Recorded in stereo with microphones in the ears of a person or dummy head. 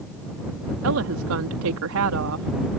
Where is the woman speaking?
80° right.